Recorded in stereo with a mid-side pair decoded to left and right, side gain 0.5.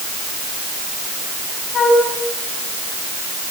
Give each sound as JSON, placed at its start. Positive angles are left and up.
{"t": 1.7, "sound": "a flute", "azimuth_deg": 50, "distance_m": 9.5}